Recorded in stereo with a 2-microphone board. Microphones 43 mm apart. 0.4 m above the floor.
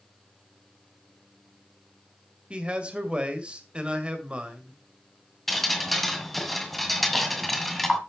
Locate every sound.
2.5 s a man speaking: 25° right (ahead or behind), 2 m
5.5 s dripping: centre (ahead or behind), 1.7 m